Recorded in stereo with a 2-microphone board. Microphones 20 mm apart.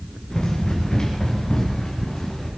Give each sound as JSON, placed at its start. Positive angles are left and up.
{"t": 0.3, "sound": "running footsteps", "side_deg": 40, "distance_m": 6.0}